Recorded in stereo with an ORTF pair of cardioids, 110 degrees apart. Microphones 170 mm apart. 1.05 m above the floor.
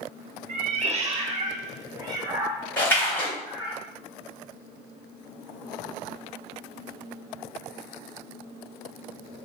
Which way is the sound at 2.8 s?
10° left.